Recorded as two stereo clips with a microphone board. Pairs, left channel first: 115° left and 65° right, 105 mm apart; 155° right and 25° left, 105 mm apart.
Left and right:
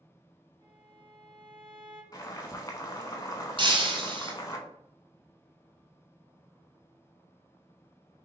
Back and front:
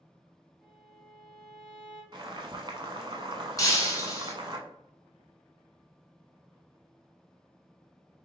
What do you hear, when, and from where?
0.6 s a violin: 70° right, 1.8 m
2.1 s boiling: 60° left, 0.7 m
3.6 s breaking glass: 100° right, 1.0 m